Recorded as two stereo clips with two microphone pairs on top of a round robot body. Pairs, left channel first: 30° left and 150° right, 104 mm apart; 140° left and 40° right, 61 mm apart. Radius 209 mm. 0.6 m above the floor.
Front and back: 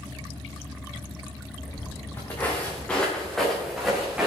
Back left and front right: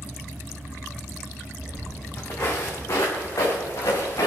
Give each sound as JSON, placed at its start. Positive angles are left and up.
{"t": 1.6, "sound": "footsteps", "azimuth_deg": 90, "distance_m": 4.0}